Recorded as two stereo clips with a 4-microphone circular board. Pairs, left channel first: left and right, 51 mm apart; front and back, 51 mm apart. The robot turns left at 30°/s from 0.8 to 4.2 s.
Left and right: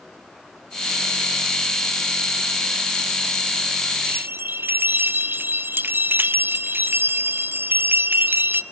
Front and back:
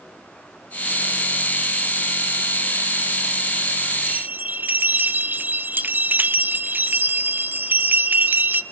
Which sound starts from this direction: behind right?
A bell, at 4.1 s.